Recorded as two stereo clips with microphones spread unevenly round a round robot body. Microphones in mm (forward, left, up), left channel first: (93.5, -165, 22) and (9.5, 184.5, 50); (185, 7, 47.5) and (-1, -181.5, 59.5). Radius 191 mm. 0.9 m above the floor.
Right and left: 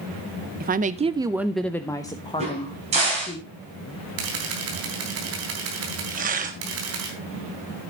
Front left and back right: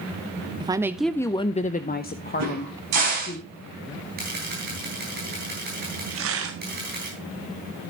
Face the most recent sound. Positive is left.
turn(degrees=175)